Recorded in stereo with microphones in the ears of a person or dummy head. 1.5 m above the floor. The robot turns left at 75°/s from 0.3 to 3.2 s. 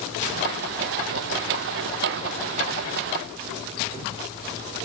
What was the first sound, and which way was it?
Only background noise.